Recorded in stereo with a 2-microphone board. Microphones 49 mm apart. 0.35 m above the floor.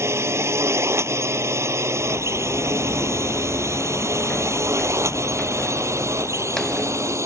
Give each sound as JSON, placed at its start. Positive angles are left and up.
{"t": 0.0, "sound": "a drone", "side_deg": -65}
{"t": 2.0, "sound": "footsteps", "side_deg": 75}